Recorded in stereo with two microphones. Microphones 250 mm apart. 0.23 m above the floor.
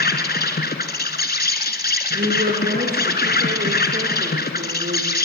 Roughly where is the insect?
Left.